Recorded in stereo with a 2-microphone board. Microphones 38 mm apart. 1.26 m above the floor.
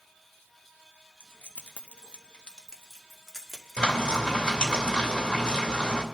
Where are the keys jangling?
65° left (ahead or behind), 0.9 m; by 4.8 s 5° right (ahead or behind), 3 m.